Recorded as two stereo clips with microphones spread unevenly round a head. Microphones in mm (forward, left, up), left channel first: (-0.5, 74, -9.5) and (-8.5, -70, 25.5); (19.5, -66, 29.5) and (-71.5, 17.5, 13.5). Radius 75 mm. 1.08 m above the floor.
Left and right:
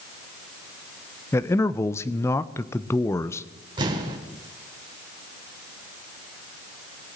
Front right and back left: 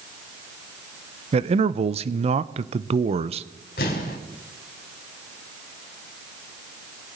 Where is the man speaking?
145° left, 0.6 m.